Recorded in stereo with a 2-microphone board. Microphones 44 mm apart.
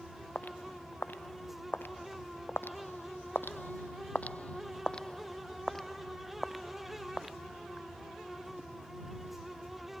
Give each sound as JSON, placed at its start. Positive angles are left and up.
{"t": 0.3, "sound": "footsteps", "side_deg": 45}